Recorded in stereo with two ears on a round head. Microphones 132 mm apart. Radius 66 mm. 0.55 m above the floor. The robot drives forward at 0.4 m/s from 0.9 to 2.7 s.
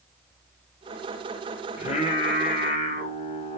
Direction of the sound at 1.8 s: 45° left (ahead or behind).